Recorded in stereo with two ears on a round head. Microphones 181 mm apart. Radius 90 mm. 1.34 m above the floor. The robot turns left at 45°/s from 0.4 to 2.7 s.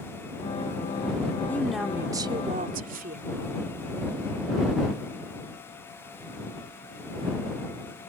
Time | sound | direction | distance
1.5 | a woman speaking | 10° left | ?